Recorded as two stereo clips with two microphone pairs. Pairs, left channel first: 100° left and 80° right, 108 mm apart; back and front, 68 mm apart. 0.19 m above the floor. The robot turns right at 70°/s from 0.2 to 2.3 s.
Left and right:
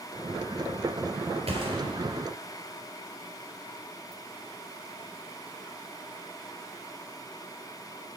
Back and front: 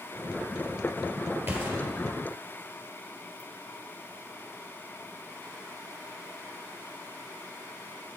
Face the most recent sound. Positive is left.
turn(degrees=5)